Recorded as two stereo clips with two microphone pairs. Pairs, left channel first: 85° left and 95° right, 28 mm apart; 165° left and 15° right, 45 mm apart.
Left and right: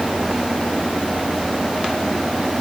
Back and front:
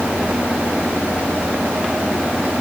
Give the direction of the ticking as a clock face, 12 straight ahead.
No ticking in this recording.